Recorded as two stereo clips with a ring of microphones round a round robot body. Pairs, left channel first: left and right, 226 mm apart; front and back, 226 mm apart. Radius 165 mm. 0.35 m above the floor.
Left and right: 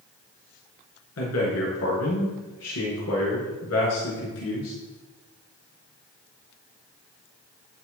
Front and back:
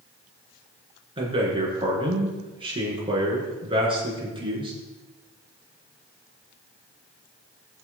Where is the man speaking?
115° left, 6 m.